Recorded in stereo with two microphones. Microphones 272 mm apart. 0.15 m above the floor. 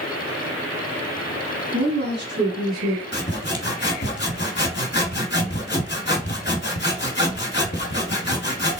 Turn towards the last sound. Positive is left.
turn(degrees=40)  # may be behind; listen again after turning